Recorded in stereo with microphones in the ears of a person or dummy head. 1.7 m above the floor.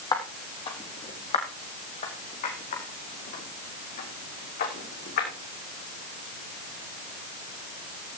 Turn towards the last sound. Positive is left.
turn(degrees=50)  # may be behind; listen again after turning